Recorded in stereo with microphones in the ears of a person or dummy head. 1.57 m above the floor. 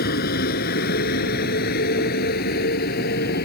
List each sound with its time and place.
0.0 s a vehicle: 50° left (ahead or behind)